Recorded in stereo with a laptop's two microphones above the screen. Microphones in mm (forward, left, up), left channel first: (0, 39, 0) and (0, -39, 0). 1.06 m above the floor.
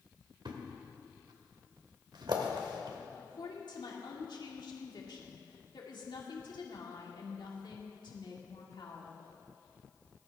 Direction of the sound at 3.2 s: 75° left (ahead or behind).